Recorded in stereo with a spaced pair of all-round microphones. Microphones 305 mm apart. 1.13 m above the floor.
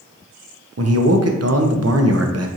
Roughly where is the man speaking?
Right.